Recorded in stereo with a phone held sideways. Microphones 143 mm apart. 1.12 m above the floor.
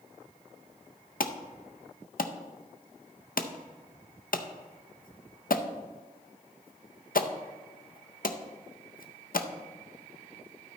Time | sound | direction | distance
1.2 | an alarm | 70° left (ahead or behind) | 0.5 m